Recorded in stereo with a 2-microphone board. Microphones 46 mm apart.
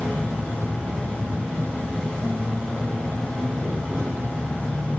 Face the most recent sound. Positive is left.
turn(degrees=25)  # may be behind; listen again after turning